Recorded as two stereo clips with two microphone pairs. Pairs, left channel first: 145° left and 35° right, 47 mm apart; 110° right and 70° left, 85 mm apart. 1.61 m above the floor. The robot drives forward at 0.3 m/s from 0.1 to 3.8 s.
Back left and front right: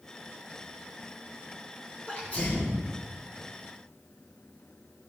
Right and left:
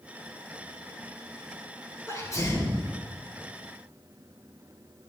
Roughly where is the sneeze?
Behind.